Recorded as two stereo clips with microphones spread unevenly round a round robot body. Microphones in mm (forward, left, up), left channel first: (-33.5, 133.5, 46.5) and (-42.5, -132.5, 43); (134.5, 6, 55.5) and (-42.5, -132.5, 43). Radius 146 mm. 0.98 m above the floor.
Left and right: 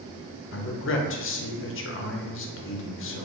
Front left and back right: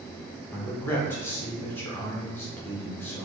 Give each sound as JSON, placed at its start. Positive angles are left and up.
{"t": 0.5, "sound": "a man speaking", "azimuth_deg": 120, "distance_m": 0.7}